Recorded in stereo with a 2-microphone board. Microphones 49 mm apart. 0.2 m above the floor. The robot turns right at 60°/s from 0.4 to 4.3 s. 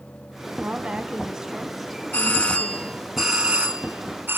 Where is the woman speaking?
75° right, 1.3 m; by 3.0 s 70° left, 1.3 m.